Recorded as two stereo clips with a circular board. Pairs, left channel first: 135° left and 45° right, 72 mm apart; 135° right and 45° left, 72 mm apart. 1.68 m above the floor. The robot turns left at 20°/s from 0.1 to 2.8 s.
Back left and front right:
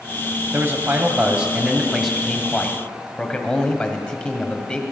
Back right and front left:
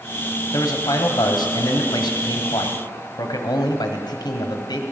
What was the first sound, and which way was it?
A man speaking, 95° right.